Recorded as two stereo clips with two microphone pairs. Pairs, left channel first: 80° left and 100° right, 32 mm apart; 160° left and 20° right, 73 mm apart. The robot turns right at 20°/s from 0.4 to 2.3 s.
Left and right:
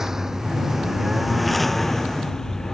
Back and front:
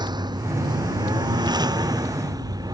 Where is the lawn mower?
25° right; by 2.8 s 5° left.